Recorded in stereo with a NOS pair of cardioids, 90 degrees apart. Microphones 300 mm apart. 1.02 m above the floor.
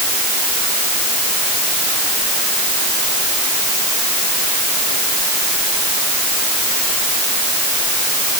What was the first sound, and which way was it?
Only background noise.